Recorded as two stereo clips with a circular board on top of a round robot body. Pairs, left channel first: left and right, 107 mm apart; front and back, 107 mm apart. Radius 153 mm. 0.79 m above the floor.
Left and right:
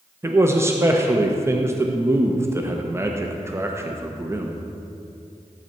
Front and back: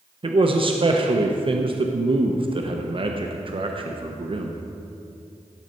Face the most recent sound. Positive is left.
turn(degrees=-155)